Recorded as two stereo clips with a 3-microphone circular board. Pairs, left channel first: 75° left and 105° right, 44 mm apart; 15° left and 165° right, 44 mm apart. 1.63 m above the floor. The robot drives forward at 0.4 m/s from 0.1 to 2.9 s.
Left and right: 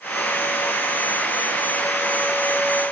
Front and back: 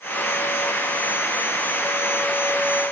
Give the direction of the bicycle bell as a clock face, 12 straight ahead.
I don't hear a bicycle bell.